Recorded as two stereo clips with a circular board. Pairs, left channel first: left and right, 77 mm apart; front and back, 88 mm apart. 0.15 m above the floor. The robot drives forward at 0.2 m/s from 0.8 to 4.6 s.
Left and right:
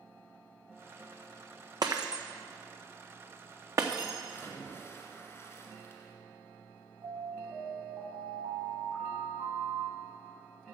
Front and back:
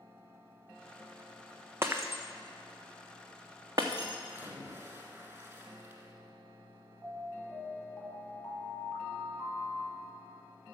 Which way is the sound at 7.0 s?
85° right.